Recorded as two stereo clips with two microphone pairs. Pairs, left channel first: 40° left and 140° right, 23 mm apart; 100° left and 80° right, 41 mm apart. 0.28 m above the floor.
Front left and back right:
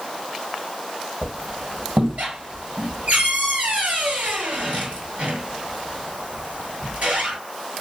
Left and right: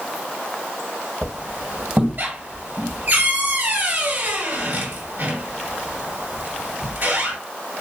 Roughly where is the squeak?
Behind right.